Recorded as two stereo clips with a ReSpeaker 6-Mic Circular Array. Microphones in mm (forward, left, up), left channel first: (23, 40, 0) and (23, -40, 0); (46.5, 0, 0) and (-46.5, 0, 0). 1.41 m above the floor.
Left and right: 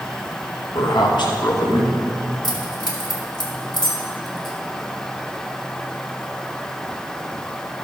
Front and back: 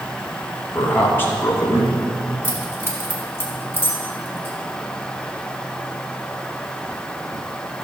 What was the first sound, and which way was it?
A man speaking, 70° left.